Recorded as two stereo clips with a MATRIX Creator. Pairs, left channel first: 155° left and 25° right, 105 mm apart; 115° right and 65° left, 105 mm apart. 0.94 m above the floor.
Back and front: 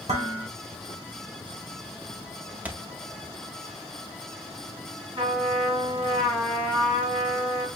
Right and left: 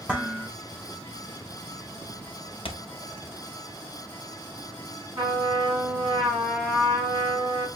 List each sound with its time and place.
0.1 s dishes clattering: 15° right, 1.4 m
2.6 s a thud: 100° right, 0.7 m
5.2 s a trumpet: 20° left, 3 m